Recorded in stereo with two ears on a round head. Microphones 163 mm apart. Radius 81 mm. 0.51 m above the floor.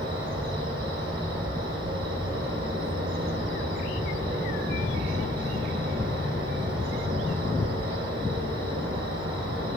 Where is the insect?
30° right (ahead or behind), 1.0 m.